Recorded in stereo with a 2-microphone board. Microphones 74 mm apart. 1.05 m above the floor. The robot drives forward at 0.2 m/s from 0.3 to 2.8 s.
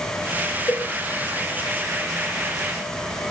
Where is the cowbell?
35° left (ahead or behind), 3 m.